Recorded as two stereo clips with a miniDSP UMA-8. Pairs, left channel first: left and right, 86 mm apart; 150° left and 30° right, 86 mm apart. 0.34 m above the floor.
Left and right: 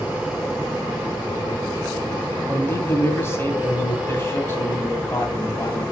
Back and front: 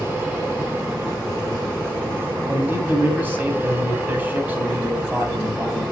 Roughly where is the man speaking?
Ahead left.